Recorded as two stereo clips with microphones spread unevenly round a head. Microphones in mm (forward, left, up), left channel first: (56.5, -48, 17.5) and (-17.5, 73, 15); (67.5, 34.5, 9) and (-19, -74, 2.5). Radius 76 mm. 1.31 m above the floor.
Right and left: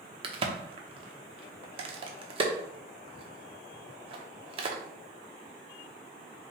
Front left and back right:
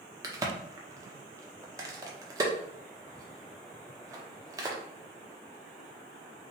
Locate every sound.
0.2 s a crack: 170° left, 0.7 m